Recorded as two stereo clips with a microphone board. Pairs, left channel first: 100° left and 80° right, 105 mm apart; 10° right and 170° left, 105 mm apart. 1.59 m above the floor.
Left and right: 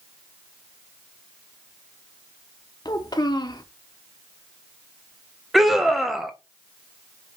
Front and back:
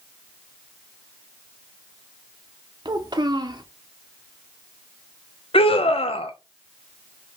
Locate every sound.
2.9 s a child speaking: 140° left, 0.7 m
5.5 s a scream: 10° left, 0.7 m